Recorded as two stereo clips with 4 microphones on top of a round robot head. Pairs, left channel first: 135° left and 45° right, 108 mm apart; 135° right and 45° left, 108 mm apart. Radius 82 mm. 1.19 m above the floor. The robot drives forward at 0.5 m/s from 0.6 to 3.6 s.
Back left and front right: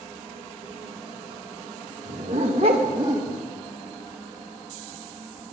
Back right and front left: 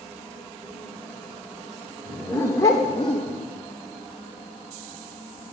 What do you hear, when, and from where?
2.0 s a dog barking: 60° right, 1.1 m; by 3.4 s 105° right, 1.1 m